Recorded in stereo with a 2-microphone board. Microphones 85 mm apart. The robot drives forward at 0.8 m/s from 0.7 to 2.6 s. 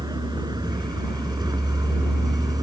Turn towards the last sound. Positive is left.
turn(degrees=-45)  # may be behind; listen again after turning